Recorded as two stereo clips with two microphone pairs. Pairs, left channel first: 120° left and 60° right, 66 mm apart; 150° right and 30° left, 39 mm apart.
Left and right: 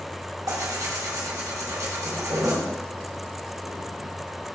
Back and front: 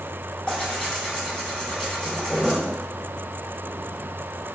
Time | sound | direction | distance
0.5 | tearing paper | 85° right | 1.6 m